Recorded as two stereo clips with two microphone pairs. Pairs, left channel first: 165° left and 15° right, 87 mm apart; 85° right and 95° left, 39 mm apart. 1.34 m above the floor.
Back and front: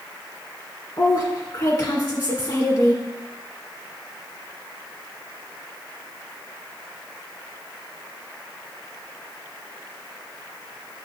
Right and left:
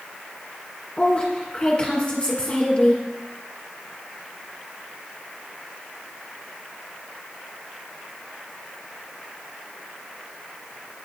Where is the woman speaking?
150° right, 1.6 m.